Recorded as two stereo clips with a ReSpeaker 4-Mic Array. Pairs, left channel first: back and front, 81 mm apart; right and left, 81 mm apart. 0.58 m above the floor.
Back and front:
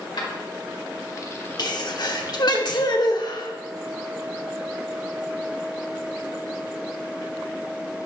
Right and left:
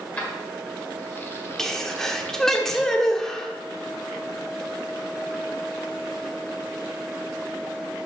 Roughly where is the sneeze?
Behind.